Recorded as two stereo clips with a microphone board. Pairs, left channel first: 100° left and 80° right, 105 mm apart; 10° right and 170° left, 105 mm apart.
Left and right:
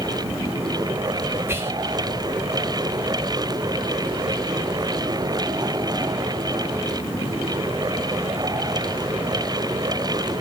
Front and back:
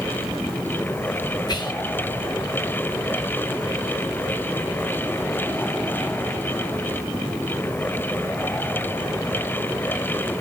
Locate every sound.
1.5 s whispering: 25° right, 0.6 m